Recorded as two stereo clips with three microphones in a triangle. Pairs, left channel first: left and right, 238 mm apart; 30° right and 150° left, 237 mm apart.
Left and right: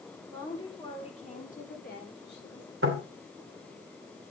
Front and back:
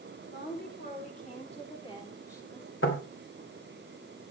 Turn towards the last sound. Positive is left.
turn(degrees=-60)